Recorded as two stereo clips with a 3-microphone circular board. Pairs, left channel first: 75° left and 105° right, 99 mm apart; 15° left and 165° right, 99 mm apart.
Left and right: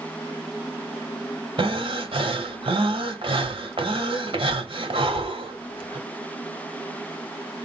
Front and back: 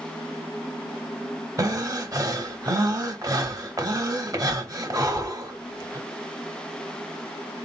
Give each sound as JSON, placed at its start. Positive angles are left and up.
{"t": 1.6, "sound": "breathing", "azimuth_deg": -115, "distance_m": 0.9}